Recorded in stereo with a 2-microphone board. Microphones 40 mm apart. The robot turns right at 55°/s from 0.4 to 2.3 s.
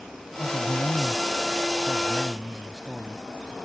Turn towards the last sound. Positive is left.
turn(degrees=180)